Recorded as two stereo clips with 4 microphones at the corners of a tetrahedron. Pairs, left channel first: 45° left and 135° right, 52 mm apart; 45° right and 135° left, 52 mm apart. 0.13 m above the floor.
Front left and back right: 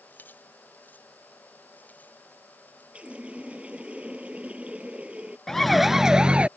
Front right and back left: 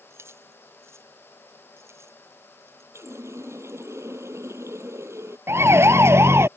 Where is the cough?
I don't hear a cough.